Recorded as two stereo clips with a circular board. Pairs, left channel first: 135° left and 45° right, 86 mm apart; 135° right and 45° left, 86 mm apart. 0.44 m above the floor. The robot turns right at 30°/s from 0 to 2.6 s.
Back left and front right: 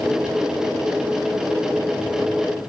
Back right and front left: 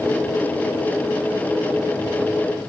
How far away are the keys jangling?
No keys jangling in this recording.